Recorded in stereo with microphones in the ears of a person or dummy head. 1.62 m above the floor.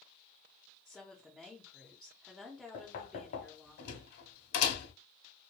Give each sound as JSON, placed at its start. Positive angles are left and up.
{"t": 0.8, "sound": "a woman speaking", "side_deg": 0, "distance_m": 0.5}
{"t": 2.7, "sound": "knocking", "side_deg": 55, "distance_m": 1.0}